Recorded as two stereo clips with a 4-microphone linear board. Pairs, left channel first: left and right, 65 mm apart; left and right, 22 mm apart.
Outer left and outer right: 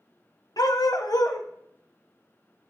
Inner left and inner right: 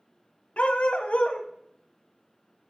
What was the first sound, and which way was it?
A dog barking, 75° left (ahead or behind).